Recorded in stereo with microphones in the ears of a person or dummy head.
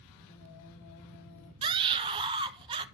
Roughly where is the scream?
Right.